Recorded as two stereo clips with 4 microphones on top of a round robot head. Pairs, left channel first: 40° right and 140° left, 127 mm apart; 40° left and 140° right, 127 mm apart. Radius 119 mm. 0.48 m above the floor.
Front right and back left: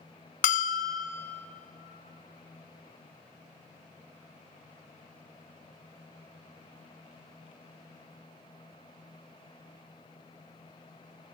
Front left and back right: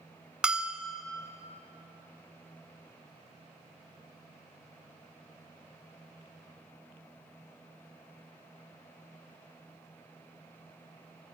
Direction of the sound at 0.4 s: 60° right.